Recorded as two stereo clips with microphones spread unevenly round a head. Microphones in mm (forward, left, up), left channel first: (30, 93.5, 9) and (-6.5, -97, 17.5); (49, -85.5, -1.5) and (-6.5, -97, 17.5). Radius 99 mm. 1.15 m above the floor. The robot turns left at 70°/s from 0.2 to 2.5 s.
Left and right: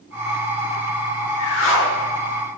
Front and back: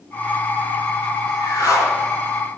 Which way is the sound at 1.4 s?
80° left.